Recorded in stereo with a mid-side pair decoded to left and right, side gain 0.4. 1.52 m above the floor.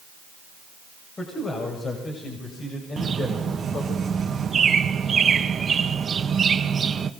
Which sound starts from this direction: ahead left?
A man speaking, at 1.2 s.